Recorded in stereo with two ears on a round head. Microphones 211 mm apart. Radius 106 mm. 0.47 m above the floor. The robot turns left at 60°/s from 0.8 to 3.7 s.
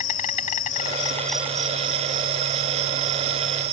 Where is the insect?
30° left; by 3.7 s 140° right.